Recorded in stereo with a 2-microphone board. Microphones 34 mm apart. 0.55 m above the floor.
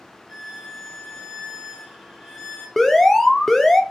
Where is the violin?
15° right (ahead or behind), 2 m.